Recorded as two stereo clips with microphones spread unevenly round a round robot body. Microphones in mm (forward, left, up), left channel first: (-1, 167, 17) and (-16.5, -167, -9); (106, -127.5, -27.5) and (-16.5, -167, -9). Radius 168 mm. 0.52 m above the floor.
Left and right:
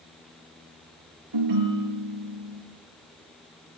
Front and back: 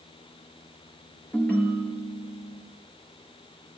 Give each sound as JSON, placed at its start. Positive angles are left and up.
{"t": 1.3, "sound": "a ringtone", "azimuth_deg": -60, "distance_m": 6.0}